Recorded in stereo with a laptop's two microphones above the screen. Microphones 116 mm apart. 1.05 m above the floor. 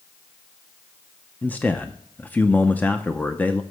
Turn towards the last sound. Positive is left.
turn(degrees=15)  # may be behind; listen again after turning